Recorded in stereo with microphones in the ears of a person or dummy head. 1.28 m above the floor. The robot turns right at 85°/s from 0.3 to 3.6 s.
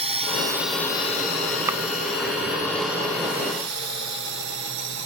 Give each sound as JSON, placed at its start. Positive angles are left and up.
{"t": 0.0, "sound": "a drone", "side_deg": -30}
{"t": 1.7, "sound": "chopping", "side_deg": -15}